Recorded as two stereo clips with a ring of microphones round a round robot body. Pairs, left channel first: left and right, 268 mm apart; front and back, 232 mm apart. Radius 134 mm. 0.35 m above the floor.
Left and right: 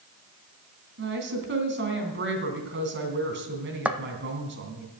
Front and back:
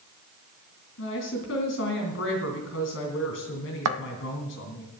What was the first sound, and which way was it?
A woman speaking, 40° right.